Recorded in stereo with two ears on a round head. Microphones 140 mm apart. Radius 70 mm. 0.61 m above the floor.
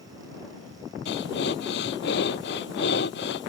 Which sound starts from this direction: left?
Breathing, at 1.1 s.